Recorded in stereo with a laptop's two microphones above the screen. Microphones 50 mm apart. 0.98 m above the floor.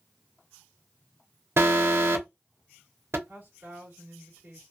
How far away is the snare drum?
I don't hear a snare drum.